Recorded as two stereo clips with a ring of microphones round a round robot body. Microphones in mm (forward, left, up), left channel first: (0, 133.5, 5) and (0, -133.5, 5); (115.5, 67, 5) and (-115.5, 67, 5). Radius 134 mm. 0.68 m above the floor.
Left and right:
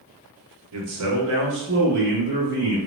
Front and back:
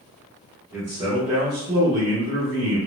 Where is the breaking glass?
No breaking glass in this recording.